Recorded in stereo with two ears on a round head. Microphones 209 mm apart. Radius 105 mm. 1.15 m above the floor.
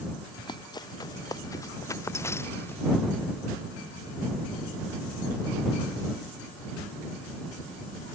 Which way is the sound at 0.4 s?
20° left (ahead or behind).